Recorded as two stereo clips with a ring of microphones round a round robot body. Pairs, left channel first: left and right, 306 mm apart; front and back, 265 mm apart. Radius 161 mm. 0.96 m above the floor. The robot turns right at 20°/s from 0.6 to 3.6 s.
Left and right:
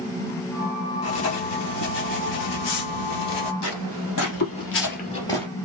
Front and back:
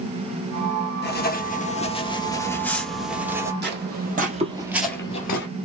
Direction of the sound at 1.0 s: 50° left.